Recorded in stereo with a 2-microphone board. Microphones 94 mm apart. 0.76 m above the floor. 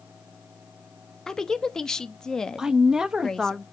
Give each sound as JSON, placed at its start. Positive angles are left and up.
{"t": 1.3, "sound": "a woman speaking", "side_deg": 5, "distance_m": 0.7}
{"t": 2.6, "sound": "a woman speaking", "side_deg": -5, "distance_m": 0.7}